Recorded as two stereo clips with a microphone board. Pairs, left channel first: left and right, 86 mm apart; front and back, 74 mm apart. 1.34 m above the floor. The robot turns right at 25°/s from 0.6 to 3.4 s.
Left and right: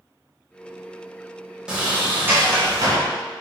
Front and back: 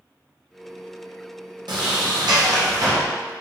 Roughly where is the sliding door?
Behind.